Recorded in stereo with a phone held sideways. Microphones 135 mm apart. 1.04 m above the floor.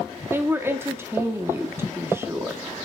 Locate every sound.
0.3 s a woman speaking: 15° right (ahead or behind), 1.8 m